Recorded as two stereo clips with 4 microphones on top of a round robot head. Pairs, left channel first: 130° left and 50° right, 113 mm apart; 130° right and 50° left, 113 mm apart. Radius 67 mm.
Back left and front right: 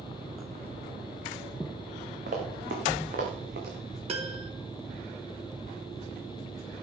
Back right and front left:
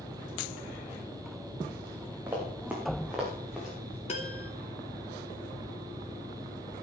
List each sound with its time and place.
2.3 s running footsteps: 25° right, 4.5 m; by 4.0 s 40° right, 5.5 m
4.1 s a piano: 90° right, 2.5 m